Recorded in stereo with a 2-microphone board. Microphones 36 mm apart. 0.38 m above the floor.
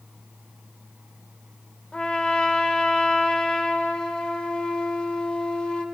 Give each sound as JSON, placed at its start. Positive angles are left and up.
{"t": 1.9, "sound": "a trumpet", "side_deg": 30, "distance_m": 0.9}